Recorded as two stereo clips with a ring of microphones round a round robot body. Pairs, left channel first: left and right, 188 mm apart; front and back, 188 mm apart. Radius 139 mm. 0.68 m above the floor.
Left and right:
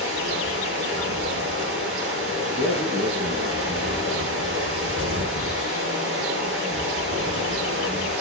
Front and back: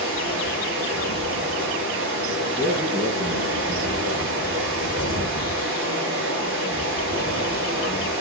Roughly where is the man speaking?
Behind right.